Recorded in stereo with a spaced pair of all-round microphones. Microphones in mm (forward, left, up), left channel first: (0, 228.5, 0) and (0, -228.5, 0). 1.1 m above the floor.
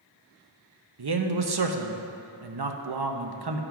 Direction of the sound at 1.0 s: 55° right (ahead or behind).